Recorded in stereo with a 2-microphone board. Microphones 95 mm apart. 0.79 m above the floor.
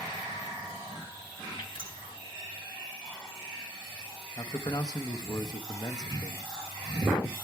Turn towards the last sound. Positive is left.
turn(degrees=40)  # may be behind; listen again after turning